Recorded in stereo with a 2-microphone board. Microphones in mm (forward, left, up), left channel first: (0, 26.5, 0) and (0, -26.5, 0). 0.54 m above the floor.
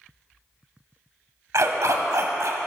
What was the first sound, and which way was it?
A dog barking, 75° right (ahead or behind).